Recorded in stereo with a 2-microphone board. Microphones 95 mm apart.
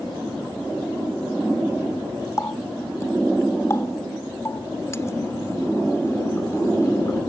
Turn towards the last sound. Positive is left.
turn(degrees=30)  # may be behind; listen again after turning